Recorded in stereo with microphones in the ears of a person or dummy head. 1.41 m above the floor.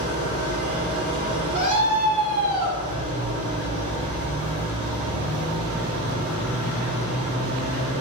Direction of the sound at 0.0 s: 50° right (ahead or behind).